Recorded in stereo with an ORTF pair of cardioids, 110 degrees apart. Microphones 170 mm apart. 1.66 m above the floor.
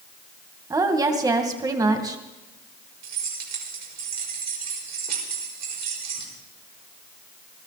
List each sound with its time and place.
0.7 s a woman speaking: 20° right, 2 m
3.0 s keys jangling: 65° right, 5 m